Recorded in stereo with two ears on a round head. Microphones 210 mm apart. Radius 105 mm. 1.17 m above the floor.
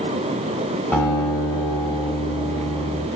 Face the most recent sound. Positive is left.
turn(degrees=5)  # may be behind; listen again after turning